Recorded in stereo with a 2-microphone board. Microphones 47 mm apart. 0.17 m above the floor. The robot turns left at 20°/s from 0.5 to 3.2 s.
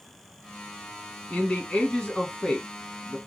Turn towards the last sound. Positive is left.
turn(degrees=5)